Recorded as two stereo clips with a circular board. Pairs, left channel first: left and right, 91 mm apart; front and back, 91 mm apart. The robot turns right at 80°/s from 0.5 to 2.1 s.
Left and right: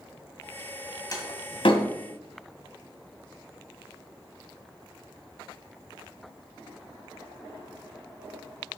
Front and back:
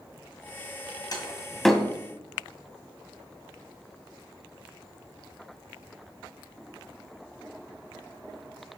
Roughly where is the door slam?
Ahead left.